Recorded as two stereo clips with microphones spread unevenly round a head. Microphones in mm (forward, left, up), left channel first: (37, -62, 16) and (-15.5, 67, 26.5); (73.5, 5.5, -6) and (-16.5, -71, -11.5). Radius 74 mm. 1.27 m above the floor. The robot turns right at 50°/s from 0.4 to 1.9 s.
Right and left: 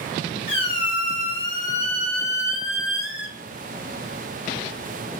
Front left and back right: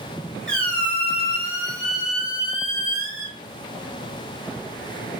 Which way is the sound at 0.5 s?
35° right.